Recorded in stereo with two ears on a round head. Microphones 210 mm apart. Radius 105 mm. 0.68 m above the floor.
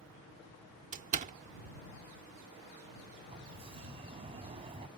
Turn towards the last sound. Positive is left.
turn(degrees=-25)  # may be behind; listen again after turning